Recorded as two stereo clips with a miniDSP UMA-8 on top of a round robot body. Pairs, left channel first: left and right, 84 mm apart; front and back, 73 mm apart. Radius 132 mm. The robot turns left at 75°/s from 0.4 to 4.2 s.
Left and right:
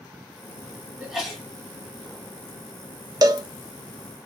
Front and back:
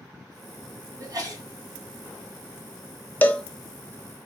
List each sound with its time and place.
1.0 s a sneeze: 165° right, 1.7 m; by 1.4 s 165° left, 1.7 m
3.2 s a cowbell: 60° right, 0.6 m; by 3.4 s 80° right, 0.6 m